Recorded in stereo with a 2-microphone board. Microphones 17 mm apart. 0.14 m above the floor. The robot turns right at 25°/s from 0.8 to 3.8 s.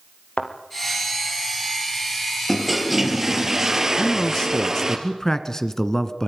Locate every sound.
0.4 s a thud: 65° left (ahead or behind), 3.5 m
2.5 s a toilet flushing: 175° left, 3 m; by 5.0 s 150° right, 3 m
4.0 s a man speaking: 35° left (ahead or behind), 1.8 m